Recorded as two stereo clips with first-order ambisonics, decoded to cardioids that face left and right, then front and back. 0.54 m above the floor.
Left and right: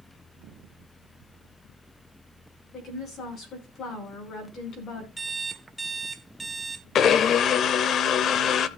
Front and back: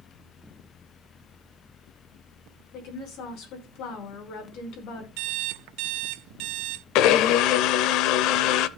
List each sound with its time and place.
2.7 s a woman speaking: 35° left, 5 m
5.2 s an alarm clock: 170° right, 0.6 m
7.0 s a blender: 35° left, 0.6 m